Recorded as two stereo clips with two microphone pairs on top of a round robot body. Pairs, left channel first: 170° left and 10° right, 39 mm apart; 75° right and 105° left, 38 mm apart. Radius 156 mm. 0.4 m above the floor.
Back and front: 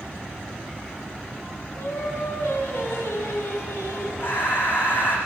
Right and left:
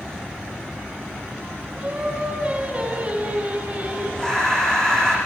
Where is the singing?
170° left, 5.5 m.